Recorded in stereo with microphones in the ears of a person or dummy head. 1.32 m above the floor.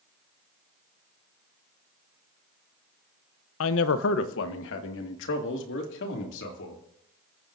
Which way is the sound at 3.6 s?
85° left.